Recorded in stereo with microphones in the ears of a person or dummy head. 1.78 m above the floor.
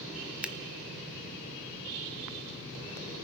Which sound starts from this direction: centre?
Scissors, at 0.4 s.